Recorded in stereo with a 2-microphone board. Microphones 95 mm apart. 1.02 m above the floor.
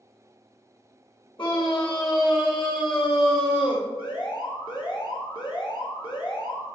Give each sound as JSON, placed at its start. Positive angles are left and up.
{"t": 1.4, "sound": "a scream", "side_deg": 60, "distance_m": 3.0}
{"t": 4.0, "sound": "an alarm", "side_deg": 55, "distance_m": 1.3}